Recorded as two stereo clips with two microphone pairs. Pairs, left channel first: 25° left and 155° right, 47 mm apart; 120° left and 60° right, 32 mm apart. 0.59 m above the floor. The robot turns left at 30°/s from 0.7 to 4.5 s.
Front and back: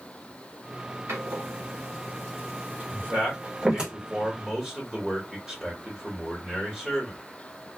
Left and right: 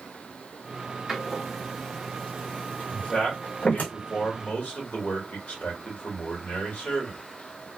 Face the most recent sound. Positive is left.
turn(degrees=130)